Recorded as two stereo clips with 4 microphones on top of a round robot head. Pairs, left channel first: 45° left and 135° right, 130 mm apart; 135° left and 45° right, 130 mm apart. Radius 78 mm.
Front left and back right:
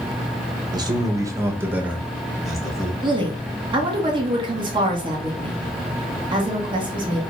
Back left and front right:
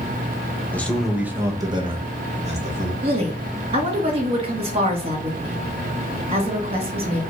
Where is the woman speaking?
85° right, 1.1 m.